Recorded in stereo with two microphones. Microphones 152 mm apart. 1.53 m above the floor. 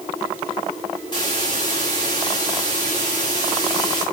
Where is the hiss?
30° left (ahead or behind), 5 m.